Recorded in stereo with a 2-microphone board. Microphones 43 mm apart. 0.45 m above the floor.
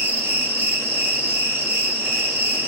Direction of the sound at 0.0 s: 65° right (ahead or behind).